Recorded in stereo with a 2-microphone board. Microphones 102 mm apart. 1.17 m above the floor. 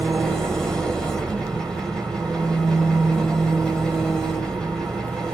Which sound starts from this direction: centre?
An engine running, at 0.0 s.